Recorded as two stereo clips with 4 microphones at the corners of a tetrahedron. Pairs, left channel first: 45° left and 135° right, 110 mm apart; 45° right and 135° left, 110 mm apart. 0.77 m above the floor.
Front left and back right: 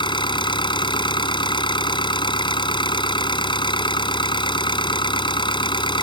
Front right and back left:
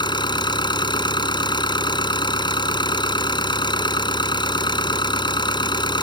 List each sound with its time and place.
0.0 s an engine running: straight ahead